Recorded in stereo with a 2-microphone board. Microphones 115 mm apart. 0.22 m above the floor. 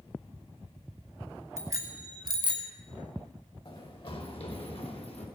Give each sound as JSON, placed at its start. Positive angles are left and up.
{"t": 1.6, "sound": "a bicycle bell", "side_deg": -30, "distance_m": 2.0}
{"t": 3.6, "sound": "running footsteps", "side_deg": 45, "distance_m": 4.0}